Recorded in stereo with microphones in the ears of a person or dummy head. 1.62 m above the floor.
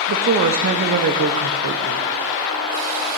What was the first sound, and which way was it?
A woman speaking, 45° right (ahead or behind).